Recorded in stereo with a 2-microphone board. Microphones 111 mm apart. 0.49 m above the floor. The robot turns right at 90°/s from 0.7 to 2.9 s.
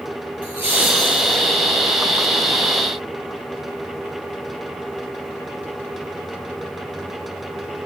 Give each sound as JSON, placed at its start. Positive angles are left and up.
{"t": 0.4, "sound": "laughter", "azimuth_deg": -15, "distance_m": 6.5}